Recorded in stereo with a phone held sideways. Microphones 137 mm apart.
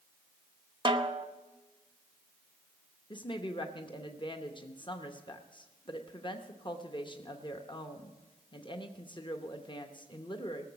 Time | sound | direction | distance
0.8 | a snare drum | 35° right (ahead or behind) | 0.8 m
3.1 | a woman speaking | 35° left (ahead or behind) | 0.8 m